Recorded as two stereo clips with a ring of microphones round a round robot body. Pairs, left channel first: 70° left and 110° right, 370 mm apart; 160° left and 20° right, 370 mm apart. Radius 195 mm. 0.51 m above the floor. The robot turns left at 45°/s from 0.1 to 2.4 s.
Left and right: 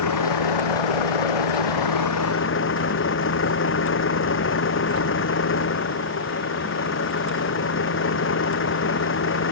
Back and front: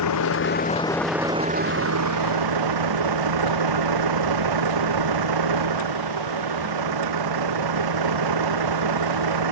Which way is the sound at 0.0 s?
110° left.